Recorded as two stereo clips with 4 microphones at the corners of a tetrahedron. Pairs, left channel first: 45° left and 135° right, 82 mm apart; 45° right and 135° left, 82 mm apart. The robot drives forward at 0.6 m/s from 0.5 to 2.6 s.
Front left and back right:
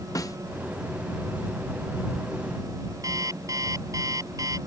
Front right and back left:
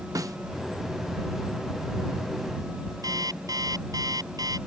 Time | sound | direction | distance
0.1 | a snare drum | 90° left | ?
3.0 | an alarm clock | 175° left | ?